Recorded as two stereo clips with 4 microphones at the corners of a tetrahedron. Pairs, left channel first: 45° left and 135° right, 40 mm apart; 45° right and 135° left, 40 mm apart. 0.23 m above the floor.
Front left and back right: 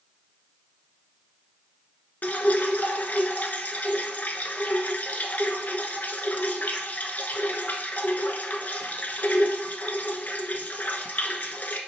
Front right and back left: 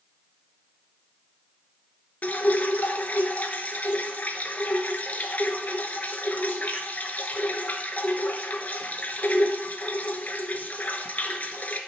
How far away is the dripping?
About 0.5 m.